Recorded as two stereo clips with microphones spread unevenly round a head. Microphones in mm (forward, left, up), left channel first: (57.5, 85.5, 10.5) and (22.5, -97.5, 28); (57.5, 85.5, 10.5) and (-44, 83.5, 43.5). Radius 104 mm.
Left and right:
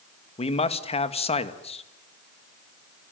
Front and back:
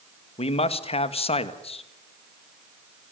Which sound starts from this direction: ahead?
A man speaking, at 0.4 s.